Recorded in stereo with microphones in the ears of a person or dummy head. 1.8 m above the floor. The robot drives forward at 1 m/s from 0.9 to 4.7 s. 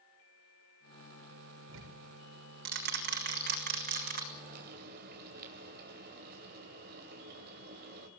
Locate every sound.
1.7 s ticking: 65° right (ahead or behind), 4 m; by 4.2 s 40° right (ahead or behind), 5.5 m
4.3 s frying: 45° right (ahead or behind), 3 m; by 8.1 s 50° right (ahead or behind), 2.5 m